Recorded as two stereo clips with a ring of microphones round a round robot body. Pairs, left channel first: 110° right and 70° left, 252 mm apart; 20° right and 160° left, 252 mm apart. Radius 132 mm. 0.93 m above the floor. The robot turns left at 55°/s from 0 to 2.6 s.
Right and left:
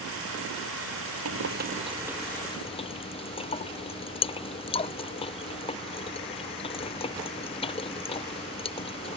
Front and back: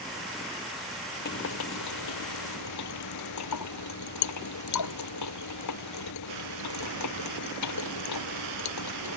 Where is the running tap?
30° left; by 9.2 s 45° right.